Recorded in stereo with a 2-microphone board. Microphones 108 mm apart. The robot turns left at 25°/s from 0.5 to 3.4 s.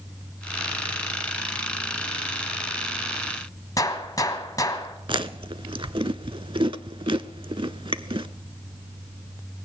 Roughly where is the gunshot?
Left.